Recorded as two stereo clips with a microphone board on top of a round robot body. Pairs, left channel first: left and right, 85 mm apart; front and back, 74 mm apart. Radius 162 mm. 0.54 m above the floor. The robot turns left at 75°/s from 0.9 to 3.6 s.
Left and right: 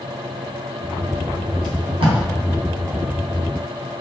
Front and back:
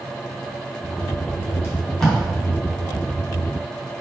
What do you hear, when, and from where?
1.6 s tape being pulled: 55° right, 0.6 m; by 2.2 s 95° right, 0.6 m